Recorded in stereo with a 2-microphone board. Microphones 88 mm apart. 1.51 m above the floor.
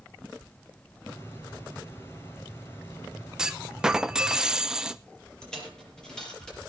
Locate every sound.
1.1 s a hiss: 25° left (ahead or behind), 2.5 m
3.4 s a clunk: 5° right (ahead or behind), 0.5 m
5.4 s a dropped coin: 5° left (ahead or behind), 6 m